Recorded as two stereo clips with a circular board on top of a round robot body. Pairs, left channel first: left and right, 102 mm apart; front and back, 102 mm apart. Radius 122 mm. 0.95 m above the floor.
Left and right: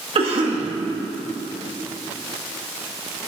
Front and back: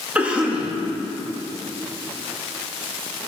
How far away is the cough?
About 2 m.